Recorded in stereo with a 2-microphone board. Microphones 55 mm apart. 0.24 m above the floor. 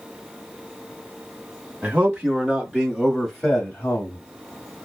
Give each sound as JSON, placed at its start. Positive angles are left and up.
{"t": 1.8, "sound": "a man speaking", "side_deg": -25, "distance_m": 1.9}